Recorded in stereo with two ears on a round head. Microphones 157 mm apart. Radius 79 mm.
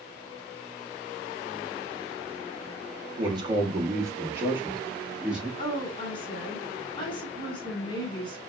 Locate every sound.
3.2 s a man speaking: 25° right (ahead or behind), 0.9 m; by 5.5 s 5° right (ahead or behind), 1.7 m
5.6 s a woman speaking: 30° left (ahead or behind), 1.4 m